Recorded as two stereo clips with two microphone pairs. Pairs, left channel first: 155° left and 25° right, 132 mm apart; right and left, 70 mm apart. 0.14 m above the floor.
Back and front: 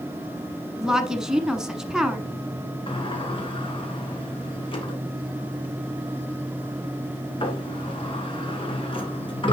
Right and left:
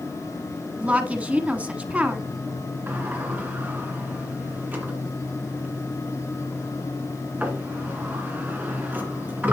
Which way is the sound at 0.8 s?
50° left.